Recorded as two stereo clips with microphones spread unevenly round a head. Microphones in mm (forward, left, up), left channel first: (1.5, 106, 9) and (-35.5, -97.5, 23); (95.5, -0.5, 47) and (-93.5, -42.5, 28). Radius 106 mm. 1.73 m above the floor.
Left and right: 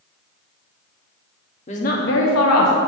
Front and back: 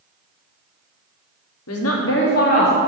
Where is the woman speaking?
20° left, 1.1 m; by 2.7 s 70° left, 1.4 m.